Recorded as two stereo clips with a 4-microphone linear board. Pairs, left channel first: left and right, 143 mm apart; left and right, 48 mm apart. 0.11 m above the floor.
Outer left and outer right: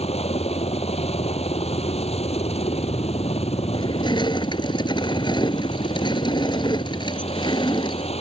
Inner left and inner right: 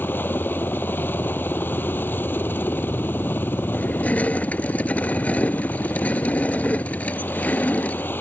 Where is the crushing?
30° left (ahead or behind).